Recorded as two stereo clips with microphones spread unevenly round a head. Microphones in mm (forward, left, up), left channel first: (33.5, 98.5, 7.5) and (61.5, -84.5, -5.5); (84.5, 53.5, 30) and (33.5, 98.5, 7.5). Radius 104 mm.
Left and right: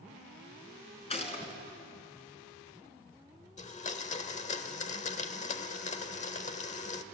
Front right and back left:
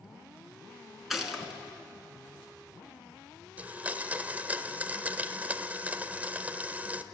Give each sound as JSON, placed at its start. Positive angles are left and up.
{"t": 1.1, "sound": "a gunshot", "azimuth_deg": 45, "distance_m": 3.0}
{"t": 3.6, "sound": "a blender", "azimuth_deg": 60, "distance_m": 1.2}